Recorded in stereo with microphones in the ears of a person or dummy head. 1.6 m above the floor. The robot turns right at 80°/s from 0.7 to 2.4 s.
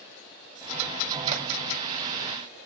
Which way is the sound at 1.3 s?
45° right (ahead or behind).